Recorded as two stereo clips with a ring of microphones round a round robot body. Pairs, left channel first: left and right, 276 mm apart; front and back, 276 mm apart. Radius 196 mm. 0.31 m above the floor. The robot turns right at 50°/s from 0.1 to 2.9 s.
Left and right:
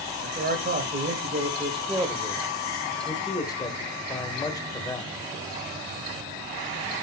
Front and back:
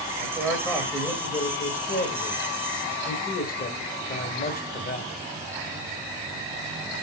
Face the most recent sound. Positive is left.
turn(degrees=25)